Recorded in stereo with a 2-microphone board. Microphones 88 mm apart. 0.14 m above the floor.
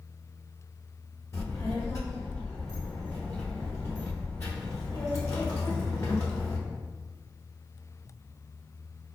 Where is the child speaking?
35° left (ahead or behind), 0.9 m.